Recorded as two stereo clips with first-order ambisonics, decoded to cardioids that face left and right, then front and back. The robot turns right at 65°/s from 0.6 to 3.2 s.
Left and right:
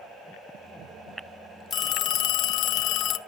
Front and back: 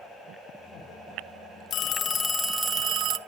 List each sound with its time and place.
1.7 s a phone ringing: 35° left, 0.5 m; by 3.2 s 130° left, 0.5 m